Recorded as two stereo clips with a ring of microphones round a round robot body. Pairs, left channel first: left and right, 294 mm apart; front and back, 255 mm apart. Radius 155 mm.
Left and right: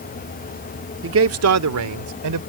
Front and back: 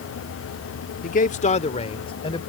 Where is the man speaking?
50° right; by 2.4 s 75° right.